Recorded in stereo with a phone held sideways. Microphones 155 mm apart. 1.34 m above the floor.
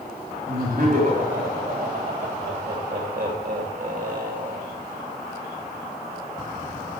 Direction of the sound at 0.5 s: 60° right (ahead or behind).